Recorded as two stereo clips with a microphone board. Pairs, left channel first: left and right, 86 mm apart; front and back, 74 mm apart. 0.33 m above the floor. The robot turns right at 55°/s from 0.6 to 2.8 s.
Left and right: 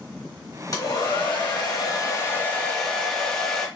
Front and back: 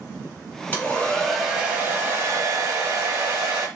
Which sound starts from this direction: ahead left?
A hair dryer, at 0.7 s.